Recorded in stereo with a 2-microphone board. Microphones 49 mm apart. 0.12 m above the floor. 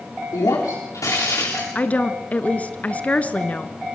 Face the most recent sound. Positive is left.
turn(degrees=25)  # may be behind; listen again after turning